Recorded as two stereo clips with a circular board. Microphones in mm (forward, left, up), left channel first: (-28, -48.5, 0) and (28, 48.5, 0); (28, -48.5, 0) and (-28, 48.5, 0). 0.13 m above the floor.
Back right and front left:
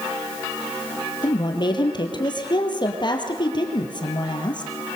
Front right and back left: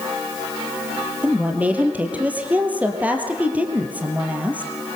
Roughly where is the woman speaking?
Behind.